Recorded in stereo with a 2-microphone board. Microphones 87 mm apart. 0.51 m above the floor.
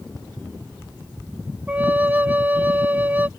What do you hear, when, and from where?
1.7 s a flute: 20° right (ahead or behind)